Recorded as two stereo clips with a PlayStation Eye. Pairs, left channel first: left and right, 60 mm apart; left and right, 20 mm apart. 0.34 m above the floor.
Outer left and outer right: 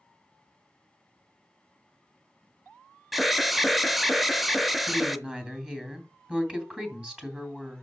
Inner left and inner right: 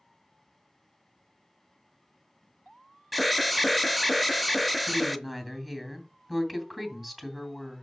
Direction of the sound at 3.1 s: 5° right (ahead or behind).